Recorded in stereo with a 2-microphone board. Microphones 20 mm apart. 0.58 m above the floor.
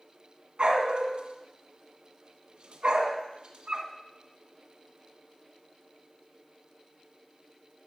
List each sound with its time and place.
0.6 s a dog barking: 60° right (ahead or behind), 1.6 m